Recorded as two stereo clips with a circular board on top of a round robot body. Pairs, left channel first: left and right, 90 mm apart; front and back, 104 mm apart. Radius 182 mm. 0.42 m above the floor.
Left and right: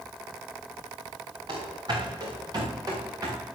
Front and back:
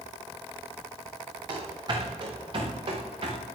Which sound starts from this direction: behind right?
Running footsteps, at 1.5 s.